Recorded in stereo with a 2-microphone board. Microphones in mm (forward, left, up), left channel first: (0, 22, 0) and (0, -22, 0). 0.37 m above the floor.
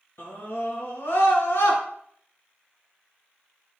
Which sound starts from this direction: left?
A scream, at 0.2 s.